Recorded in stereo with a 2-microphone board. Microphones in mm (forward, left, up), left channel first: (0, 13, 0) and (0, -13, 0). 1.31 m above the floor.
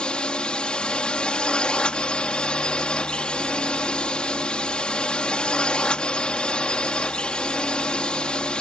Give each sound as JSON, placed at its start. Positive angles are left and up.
{"t": 0.0, "sound": "a drone", "side_deg": 40}